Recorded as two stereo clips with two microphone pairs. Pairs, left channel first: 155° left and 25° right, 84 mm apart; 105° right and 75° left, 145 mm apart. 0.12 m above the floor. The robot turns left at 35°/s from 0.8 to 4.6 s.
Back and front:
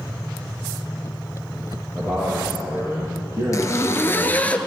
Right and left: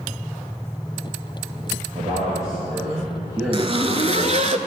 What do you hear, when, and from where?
1.9 s a man speaking: 65° left, 3.5 m; by 4.5 s 25° right, 3.5 m
3.5 s a zipper: 115° left, 0.6 m; by 4.6 s 75° left, 0.6 m